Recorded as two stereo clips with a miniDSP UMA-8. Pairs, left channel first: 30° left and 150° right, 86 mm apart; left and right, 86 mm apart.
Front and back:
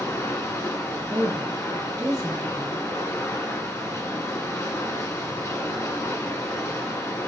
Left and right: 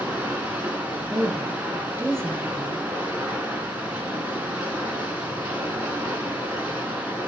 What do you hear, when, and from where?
0.0 s running water: 20° right, 1.3 m
1.1 s a woman speaking: 135° right, 1.3 m